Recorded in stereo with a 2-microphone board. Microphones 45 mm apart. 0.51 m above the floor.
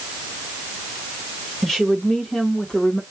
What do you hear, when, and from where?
1.6 s a woman speaking: 5° left (ahead or behind), 1.3 m; by 3.0 s 20° left (ahead or behind), 1.0 m